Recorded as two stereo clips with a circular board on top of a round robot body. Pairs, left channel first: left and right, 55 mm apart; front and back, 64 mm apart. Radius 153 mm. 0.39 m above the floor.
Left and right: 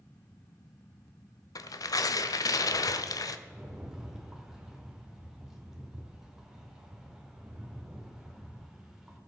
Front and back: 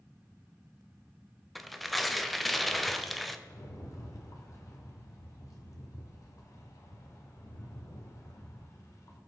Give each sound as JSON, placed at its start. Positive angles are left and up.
{"t": 1.6, "sound": "tearing paper", "azimuth_deg": 85, "distance_m": 0.7}
{"t": 3.5, "sound": "a rattle", "azimuth_deg": -10, "distance_m": 2.5}